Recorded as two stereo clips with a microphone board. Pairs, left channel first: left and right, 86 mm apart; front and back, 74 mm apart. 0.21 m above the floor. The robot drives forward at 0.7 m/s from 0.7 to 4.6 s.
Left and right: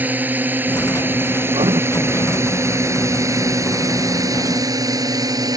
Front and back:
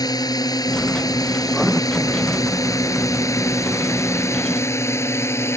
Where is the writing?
85° right.